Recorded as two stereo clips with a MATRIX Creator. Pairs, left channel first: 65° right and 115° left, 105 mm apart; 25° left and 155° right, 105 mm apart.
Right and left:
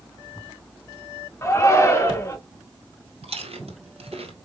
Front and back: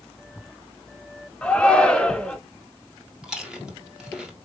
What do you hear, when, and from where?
1.4 s a shout: 45° right, 1.1 m
3.2 s chewing: 120° left, 1.6 m